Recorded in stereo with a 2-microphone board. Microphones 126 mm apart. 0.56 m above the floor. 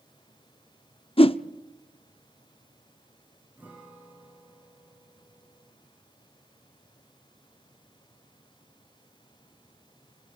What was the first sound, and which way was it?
A whoosh, 45° left (ahead or behind).